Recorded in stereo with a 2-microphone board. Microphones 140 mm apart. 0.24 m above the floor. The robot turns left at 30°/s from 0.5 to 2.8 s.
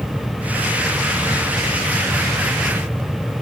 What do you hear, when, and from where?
Only background noise.